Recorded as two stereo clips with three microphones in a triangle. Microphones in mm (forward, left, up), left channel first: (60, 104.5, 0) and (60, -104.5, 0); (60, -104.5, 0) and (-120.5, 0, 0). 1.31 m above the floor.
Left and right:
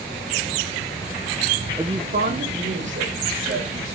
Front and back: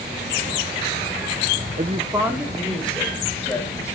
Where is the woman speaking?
160° right, 0.8 m; by 4.0 s 105° right, 4 m.